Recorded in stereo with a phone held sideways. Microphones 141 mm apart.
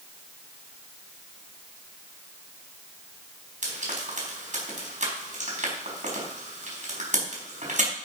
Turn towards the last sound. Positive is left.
turn(degrees=-60)  # may be behind; listen again after turning